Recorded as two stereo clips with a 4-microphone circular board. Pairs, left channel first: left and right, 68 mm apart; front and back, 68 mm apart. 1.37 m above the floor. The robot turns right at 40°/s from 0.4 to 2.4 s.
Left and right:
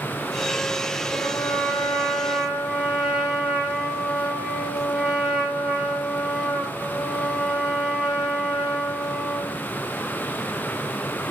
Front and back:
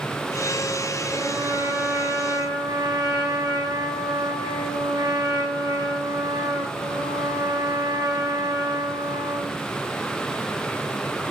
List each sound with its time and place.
1.1 s a trumpet: 135° left, 4.5 m; by 9.6 s 170° right, 4.5 m